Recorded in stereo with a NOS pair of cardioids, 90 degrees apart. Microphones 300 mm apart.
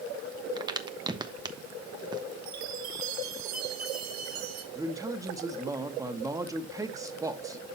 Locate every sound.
0.6 s a crack: 15° right, 1.2 m
2.5 s a chime: 65° right, 2 m
4.8 s a man speaking: 10° right, 1.8 m